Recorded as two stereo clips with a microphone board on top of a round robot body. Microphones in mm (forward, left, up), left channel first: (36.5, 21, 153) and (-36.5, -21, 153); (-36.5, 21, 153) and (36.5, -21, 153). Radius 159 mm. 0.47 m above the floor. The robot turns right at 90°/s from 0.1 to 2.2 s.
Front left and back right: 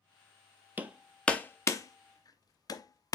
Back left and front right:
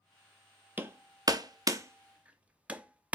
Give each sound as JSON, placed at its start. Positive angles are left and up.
{"t": 0.8, "sound": "hammering", "azimuth_deg": -90, "distance_m": 0.9}